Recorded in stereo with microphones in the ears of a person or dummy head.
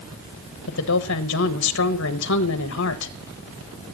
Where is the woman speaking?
65° left (ahead or behind), 1.3 m.